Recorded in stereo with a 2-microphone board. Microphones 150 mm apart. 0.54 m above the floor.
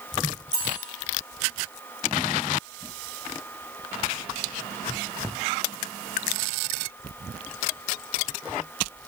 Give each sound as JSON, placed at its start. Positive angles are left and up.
{"t": 0.5, "sound": "cutlery clinking", "side_deg": 30, "distance_m": 4.5}